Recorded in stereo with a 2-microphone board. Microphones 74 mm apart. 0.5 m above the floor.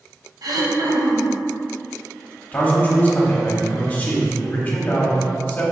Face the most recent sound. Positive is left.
turn(degrees=25)  # may be behind; listen again after turning